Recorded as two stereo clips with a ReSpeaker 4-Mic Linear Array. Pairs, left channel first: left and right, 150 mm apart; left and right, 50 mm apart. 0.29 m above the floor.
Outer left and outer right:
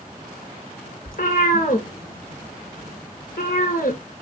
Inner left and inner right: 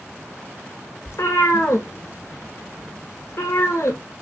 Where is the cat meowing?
75° left (ahead or behind), 0.9 m.